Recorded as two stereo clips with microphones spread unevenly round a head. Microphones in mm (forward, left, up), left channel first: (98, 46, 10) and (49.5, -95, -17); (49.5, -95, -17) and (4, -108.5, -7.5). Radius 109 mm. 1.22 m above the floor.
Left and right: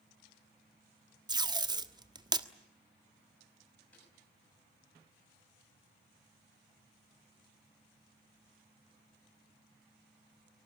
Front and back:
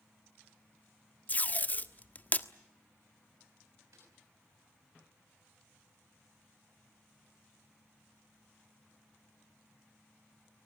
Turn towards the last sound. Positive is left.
turn(degrees=150)